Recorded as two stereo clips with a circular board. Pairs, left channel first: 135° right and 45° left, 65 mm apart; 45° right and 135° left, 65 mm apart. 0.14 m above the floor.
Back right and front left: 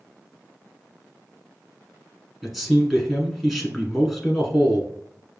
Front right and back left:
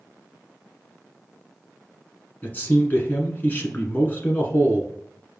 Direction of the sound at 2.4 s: 40° right.